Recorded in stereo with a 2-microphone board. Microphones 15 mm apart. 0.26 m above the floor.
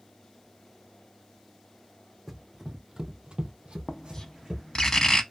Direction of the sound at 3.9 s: 30° left (ahead or behind).